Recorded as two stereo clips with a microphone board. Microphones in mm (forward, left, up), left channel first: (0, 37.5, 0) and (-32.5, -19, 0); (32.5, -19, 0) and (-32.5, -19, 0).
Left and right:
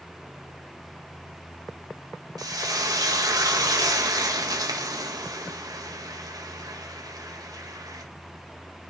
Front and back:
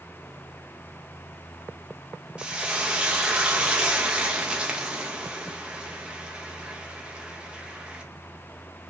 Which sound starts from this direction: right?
Frying, at 2.4 s.